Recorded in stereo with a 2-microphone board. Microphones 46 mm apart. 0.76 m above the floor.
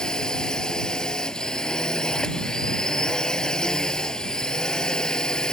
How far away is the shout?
I don't hear a shout.